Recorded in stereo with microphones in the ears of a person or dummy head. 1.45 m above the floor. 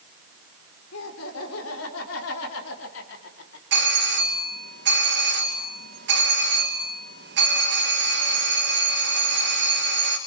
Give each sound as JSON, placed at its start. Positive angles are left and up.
{"t": 0.9, "sound": "laughter", "side_deg": 75, "distance_m": 5.5}
{"t": 3.7, "sound": "a doorbell", "side_deg": -60, "distance_m": 3.0}